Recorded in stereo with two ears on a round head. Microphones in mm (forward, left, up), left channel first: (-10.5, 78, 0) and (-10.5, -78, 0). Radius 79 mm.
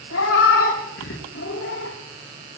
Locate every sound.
0.1 s a cat meowing: 80° left, 5.5 m